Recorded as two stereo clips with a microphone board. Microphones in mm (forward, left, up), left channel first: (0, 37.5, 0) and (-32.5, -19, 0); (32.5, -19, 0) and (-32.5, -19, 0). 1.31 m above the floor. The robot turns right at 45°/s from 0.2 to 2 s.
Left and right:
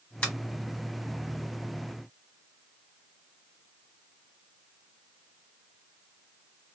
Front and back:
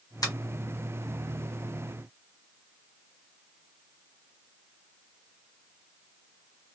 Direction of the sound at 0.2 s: 10° right.